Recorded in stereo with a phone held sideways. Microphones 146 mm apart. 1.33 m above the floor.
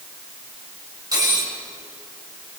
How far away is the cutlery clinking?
About 5 m.